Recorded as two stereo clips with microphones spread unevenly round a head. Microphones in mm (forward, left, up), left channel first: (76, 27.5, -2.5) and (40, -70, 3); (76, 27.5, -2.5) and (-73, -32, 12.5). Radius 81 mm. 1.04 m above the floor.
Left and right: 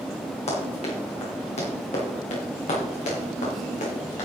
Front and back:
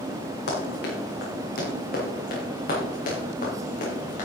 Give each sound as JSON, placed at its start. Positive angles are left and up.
{"t": 0.5, "sound": "running footsteps", "azimuth_deg": 50, "distance_m": 4.5}